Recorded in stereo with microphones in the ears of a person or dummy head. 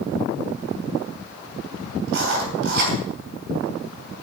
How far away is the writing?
About 4 m.